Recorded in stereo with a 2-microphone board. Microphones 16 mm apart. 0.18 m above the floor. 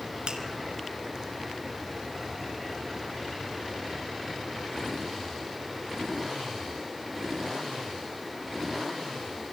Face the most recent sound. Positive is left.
turn(degrees=-60)  # may be behind; listen again after turning